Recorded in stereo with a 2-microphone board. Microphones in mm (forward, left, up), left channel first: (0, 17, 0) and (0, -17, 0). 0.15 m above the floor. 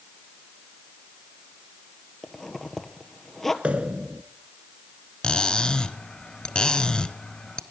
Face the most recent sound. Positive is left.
turn(degrees=25)  # may be behind; listen again after turning